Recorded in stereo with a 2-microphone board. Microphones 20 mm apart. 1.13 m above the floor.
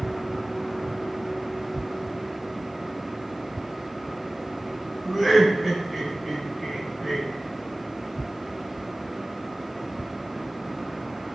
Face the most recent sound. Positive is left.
turn(degrees=-5)  # may be behind; listen again after turning